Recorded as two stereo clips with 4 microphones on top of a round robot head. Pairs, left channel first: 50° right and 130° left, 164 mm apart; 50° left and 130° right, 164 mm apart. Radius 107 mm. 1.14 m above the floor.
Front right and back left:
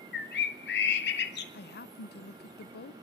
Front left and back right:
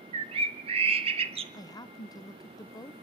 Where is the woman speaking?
20° right, 0.8 m.